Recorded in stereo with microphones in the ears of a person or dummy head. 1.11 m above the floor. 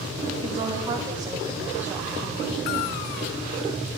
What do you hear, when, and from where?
0.4 s a woman speaking: 20° right (ahead or behind), 2.5 m; by 3.1 s 20° left (ahead or behind), 1.8 m